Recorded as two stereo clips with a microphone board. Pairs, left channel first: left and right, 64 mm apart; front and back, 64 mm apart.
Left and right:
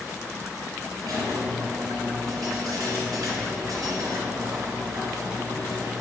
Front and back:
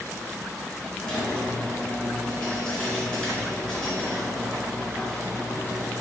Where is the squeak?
75° right, 3.5 m.